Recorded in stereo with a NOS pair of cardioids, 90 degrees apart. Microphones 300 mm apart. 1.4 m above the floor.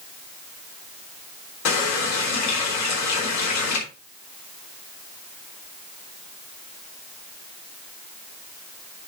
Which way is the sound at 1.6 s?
65° left.